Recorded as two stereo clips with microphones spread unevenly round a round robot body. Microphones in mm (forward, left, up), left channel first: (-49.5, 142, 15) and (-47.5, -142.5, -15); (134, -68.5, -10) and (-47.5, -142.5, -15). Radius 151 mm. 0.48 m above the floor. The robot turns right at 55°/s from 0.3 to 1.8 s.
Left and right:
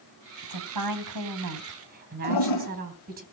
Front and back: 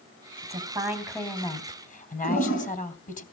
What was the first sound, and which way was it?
A woman speaking, 105° right.